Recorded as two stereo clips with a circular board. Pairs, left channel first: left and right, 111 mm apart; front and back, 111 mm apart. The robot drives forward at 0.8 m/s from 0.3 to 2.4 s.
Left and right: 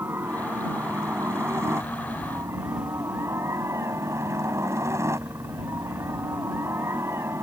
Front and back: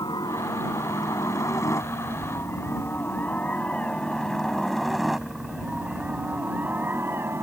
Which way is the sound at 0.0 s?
30° right.